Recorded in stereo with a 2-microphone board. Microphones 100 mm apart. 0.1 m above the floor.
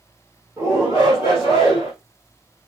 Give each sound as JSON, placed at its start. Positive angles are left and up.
{"t": 0.6, "sound": "a shout", "side_deg": -30, "distance_m": 2.5}